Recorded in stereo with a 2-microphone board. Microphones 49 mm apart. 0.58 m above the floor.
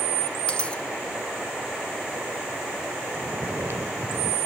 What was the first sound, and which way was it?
A dropped coin, 20° left (ahead or behind).